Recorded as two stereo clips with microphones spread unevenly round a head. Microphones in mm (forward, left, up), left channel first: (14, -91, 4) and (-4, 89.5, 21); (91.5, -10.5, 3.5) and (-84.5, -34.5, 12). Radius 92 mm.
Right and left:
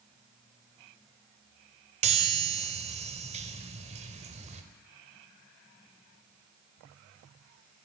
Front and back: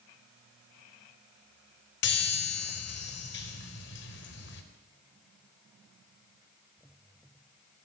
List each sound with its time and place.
2.0 s a chime: 40° left, 4 m